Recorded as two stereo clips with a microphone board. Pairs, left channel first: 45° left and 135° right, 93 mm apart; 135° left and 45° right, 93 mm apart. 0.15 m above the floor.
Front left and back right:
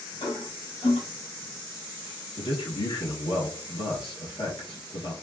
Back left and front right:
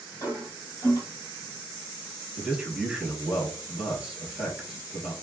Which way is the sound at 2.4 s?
35° left.